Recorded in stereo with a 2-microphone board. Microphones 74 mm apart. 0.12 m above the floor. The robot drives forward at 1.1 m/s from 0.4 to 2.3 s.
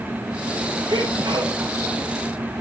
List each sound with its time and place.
0.9 s a sneeze: 65° right (ahead or behind), 3 m